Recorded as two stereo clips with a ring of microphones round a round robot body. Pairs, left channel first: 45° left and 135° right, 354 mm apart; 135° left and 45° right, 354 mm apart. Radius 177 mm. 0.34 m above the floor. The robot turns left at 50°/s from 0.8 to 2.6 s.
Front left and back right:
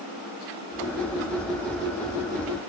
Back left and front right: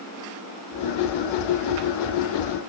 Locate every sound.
Only background noise.